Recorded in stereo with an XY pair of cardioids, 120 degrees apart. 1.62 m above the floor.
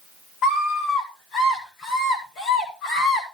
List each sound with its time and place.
0.4 s a scream: 55° left, 8.5 m; by 3.2 s 65° left, 8.5 m